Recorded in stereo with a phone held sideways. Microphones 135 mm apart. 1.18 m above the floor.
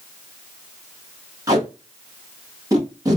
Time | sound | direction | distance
1.5 | tape being pulled | 25° right (ahead or behind) | 1.1 m